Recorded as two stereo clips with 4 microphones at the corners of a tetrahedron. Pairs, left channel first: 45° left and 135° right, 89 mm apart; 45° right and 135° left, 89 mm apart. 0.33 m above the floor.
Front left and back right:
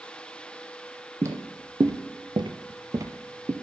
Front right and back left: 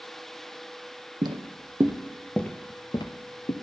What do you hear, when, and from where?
1.2 s footsteps: 170° left, 0.9 m; by 3.5 s 70° right, 0.9 m